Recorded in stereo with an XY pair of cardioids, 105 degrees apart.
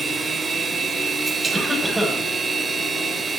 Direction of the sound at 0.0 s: 30° right.